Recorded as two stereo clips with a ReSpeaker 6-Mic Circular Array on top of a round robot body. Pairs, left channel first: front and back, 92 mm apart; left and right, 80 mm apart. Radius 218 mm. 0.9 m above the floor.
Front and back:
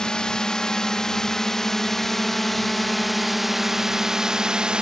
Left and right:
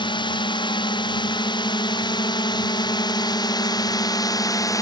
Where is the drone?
80° left; by 4.8 s 105° left.